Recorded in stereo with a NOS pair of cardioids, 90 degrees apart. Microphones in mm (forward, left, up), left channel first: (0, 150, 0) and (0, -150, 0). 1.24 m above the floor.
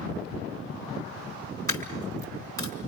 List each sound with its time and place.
1.7 s a dropped coin: 10° left, 5 m